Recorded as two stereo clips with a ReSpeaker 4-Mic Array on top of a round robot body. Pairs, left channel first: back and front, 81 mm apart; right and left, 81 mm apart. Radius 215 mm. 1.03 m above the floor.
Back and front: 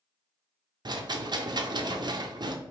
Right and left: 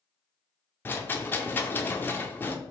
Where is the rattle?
25° right, 0.5 m.